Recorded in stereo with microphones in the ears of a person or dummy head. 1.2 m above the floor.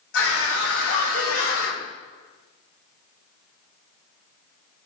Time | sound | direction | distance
0.1 | a scream | 85° left | 4.5 m